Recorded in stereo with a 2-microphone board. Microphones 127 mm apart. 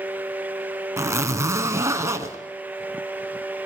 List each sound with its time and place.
1.0 s a zipper: 25° right (ahead or behind), 1.5 m